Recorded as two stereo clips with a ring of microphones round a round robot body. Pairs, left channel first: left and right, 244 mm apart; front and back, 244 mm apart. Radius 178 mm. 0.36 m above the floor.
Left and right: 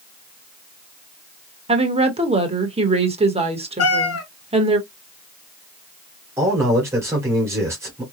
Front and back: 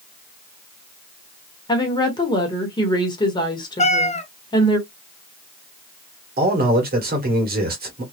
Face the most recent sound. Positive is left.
turn(degrees=-165)